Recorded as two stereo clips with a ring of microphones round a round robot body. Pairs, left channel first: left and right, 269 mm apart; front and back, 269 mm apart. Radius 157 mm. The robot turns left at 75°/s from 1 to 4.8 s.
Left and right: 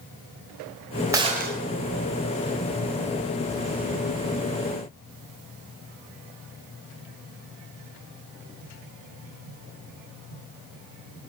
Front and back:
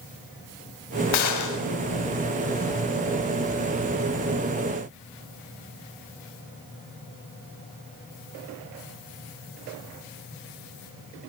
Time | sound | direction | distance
1.1 | a gunshot | 10° right | 3.5 m